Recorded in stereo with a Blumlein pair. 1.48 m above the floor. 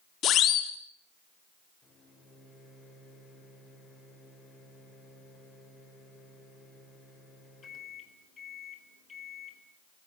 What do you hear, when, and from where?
0.2 s a siren: 30° left, 2.5 m
1.8 s a microwave: 20° left, 5 m